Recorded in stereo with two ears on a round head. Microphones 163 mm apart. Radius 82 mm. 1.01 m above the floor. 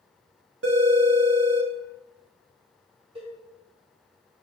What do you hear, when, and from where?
0.6 s a phone ringing: 70° right (ahead or behind), 1.0 m
3.1 s a cowbell: 30° right (ahead or behind), 1.8 m